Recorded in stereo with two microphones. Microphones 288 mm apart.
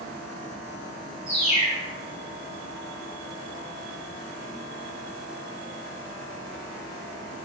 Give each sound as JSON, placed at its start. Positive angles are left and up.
{"t": 1.3, "sound": "a bird", "side_deg": 25, "distance_m": 1.4}